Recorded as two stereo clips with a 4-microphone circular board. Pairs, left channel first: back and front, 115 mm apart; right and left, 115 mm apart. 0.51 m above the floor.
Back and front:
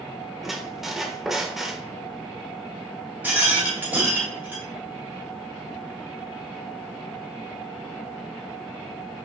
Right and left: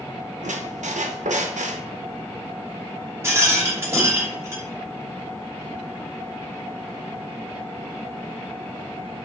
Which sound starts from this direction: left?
A squeak, at 0.4 s.